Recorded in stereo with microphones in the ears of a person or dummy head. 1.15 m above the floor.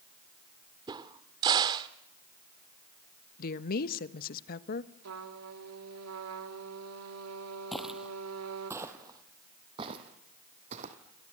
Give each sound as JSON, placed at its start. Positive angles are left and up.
{"t": 0.9, "sound": "a crack", "side_deg": -20, "distance_m": 1.0}
{"t": 3.4, "sound": "a woman speaking", "side_deg": 50, "distance_m": 1.4}
{"t": 5.0, "sound": "a trumpet", "side_deg": -80, "distance_m": 3.0}
{"t": 7.7, "sound": "footsteps", "side_deg": 5, "distance_m": 2.0}